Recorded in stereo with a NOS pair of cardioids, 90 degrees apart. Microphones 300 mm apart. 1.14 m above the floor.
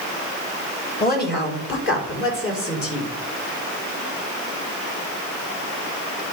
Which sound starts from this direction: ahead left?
A woman speaking, at 1.0 s.